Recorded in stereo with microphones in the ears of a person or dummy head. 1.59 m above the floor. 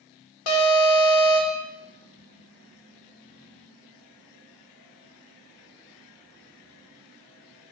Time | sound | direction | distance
0.5 | an alarm | 70° left (ahead or behind) | 1.8 m